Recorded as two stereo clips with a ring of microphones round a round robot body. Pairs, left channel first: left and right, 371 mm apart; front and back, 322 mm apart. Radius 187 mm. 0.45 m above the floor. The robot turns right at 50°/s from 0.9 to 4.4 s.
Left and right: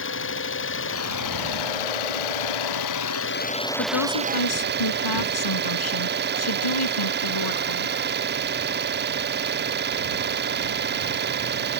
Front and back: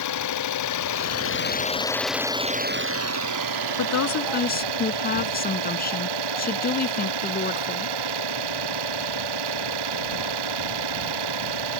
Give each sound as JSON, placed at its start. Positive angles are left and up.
{"t": 0.0, "sound": "an engine running", "azimuth_deg": 30}
{"t": 3.8, "sound": "a woman speaking", "azimuth_deg": 30}